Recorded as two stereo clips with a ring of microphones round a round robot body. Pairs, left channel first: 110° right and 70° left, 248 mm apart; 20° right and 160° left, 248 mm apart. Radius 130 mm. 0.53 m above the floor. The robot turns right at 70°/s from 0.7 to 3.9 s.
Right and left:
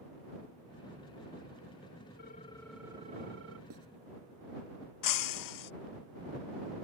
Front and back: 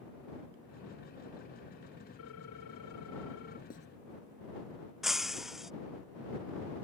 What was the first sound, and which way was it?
A ringtone, 60° right.